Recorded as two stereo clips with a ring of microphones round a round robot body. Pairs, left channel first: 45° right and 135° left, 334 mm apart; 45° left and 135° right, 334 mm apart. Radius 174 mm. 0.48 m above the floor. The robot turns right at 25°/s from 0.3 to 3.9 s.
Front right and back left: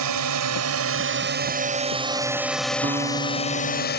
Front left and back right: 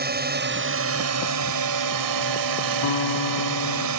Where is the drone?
165° left; by 4.0 s 105° right.